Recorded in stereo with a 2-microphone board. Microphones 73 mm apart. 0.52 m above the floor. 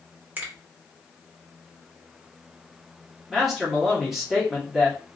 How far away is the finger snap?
About 0.9 m.